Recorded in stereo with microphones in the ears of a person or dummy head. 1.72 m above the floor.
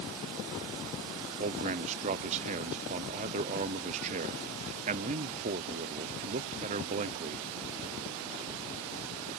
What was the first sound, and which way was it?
A man speaking, 35° right (ahead or behind).